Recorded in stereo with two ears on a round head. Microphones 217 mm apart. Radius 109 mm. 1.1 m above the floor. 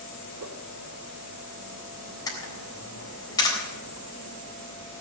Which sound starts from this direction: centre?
A camera shutter, at 2.3 s.